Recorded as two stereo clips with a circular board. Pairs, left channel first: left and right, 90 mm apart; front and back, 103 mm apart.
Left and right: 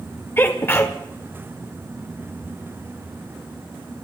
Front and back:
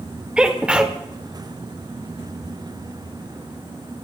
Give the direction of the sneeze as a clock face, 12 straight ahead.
8 o'clock.